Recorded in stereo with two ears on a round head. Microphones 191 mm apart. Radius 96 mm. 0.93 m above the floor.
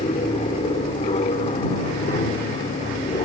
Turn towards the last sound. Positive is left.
turn(degrees=25)  # may be behind; listen again after turning